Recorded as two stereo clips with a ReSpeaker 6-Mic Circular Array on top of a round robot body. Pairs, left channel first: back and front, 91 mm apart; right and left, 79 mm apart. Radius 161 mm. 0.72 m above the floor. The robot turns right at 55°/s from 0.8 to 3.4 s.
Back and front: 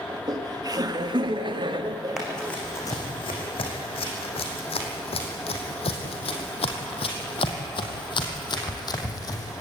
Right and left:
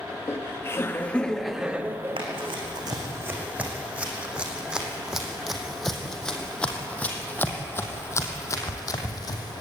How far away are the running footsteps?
About 4 m.